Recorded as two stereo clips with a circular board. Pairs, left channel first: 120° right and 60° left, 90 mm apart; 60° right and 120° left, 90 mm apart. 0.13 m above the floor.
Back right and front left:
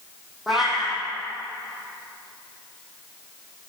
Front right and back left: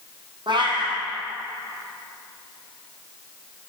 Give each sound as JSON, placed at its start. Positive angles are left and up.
{"t": 0.5, "sound": "a cat meowing", "azimuth_deg": 150, "distance_m": 3.5}